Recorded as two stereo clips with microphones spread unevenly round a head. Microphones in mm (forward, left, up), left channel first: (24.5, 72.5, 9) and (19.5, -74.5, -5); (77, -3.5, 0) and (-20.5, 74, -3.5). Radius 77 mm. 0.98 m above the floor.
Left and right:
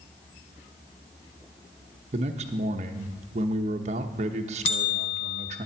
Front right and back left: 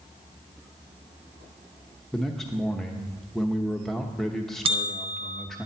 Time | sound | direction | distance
2.1 | a man speaking | 125° right | 0.9 m
4.7 | a bell | 115° left | 1.4 m